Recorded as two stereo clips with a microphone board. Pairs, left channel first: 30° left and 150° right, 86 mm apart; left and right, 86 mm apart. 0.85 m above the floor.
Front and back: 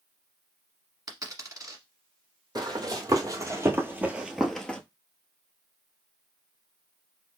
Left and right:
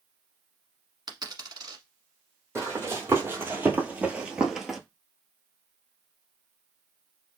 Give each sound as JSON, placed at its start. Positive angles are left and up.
{"t": 1.1, "sound": "a dropped coin", "azimuth_deg": -115, "distance_m": 1.2}
{"t": 2.5, "sound": "running footsteps", "azimuth_deg": -145, "distance_m": 1.4}